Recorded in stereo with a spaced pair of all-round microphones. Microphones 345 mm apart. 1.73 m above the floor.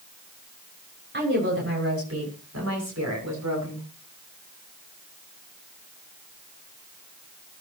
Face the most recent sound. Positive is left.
turn(degrees=-60)  # may be behind; listen again after turning